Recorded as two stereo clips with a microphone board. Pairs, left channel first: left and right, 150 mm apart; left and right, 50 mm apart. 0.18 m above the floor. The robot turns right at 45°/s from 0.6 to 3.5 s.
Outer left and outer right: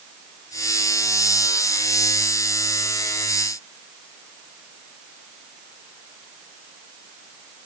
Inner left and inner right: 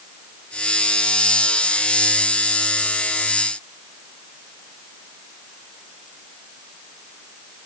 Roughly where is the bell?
No bell in this recording.